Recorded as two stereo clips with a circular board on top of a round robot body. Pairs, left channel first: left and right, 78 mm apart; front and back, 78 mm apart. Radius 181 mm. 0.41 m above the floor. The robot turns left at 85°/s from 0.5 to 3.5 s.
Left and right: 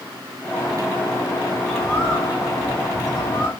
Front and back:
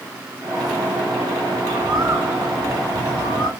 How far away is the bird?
About 2 m.